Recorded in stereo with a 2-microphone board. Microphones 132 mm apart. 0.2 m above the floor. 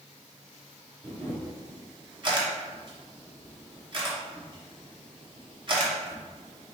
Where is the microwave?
No microwave in this recording.